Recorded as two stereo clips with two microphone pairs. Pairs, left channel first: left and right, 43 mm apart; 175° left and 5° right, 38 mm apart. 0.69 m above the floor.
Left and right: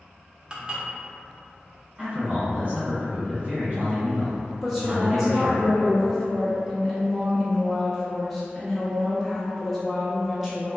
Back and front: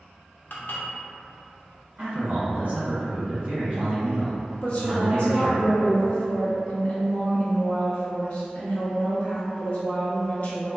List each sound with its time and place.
0.5 s dishes clattering: 155° right, 0.6 m
2.0 s a man speaking: 45° right, 1.6 m
4.6 s a woman speaking: 175° left, 0.6 m